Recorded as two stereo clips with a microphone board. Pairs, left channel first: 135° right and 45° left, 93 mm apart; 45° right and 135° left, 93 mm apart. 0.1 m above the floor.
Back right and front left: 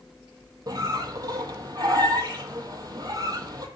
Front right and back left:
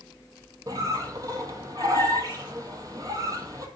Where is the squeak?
90° left, 0.6 m.